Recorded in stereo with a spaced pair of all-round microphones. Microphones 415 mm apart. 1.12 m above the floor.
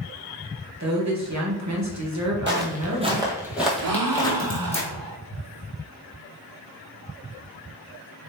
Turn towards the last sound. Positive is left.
turn(degrees=-55)  # may be behind; listen again after turning